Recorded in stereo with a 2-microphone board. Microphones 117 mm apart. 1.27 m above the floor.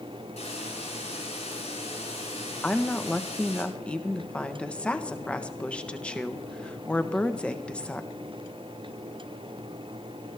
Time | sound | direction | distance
0.4 | a hiss | 70° left (ahead or behind) | 8 m
2.6 | a woman speaking | 10° left (ahead or behind) | 1.2 m